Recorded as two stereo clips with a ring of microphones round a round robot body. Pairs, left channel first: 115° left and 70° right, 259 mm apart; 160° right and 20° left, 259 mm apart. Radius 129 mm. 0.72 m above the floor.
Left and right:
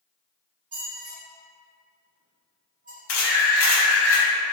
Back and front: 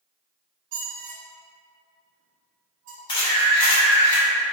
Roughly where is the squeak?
Ahead.